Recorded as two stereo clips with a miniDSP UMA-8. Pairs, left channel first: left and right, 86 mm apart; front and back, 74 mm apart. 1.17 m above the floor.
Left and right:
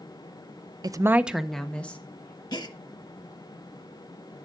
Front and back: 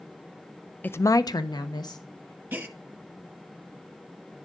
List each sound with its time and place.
0.8 s a woman speaking: 65° right, 0.6 m; by 2.4 s 25° left, 1.9 m
2.5 s a gasp: 115° left, 1.1 m